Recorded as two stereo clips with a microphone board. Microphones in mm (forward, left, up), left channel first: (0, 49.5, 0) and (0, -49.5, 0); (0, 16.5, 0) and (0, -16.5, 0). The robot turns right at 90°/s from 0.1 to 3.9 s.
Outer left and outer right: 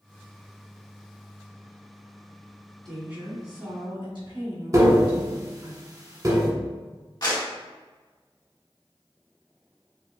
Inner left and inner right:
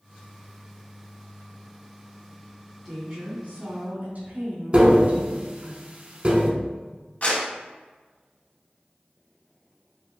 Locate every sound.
2.9 s a woman speaking: 175° left, 1.9 m; by 5.7 s 90° right, 1.9 m
4.7 s tapping: 40° right (ahead or behind), 0.9 m
7.2 s a clap: 45° left (ahead or behind), 1.8 m